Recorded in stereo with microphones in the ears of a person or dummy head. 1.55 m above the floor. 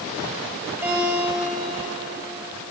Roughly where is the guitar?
Centre.